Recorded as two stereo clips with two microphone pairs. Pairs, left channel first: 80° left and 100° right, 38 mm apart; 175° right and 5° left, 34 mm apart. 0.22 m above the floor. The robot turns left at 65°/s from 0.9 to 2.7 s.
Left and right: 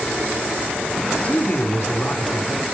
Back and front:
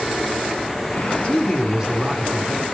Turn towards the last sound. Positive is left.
turn(degrees=30)